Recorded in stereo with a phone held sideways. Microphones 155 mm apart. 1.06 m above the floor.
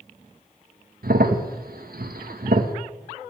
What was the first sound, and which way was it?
A crack, 75° right (ahead or behind).